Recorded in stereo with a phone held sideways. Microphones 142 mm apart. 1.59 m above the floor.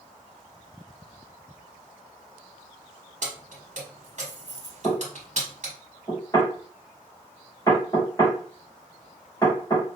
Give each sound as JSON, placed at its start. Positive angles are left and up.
{"t": 3.2, "sound": "keys jangling", "side_deg": -55, "distance_m": 1.2}
{"t": 4.8, "sound": "knocking", "side_deg": 20, "distance_m": 2.0}